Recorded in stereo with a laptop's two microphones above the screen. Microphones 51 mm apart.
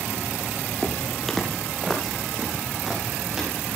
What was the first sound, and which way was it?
Footsteps, 15° left (ahead or behind).